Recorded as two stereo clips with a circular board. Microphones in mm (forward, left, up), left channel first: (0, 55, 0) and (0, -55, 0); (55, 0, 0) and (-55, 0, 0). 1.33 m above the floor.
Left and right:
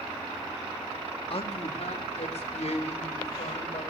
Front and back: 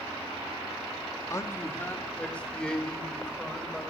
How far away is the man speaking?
About 2 m.